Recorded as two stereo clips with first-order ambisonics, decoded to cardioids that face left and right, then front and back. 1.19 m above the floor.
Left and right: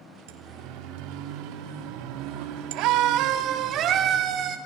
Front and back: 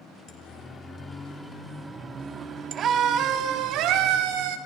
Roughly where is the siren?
Right.